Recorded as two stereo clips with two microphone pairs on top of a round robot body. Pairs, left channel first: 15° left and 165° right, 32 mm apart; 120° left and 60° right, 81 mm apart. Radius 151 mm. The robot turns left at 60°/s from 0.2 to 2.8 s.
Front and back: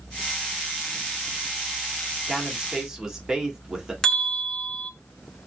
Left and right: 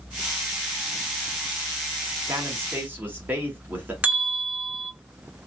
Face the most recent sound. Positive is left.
turn(degrees=-50)